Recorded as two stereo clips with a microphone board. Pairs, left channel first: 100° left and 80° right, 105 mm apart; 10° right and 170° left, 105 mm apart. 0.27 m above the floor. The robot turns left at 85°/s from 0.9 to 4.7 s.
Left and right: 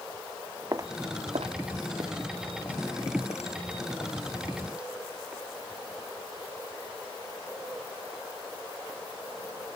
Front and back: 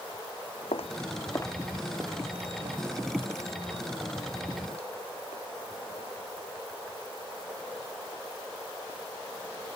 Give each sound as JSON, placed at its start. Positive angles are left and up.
{"t": 0.7, "sound": "footsteps", "azimuth_deg": -25}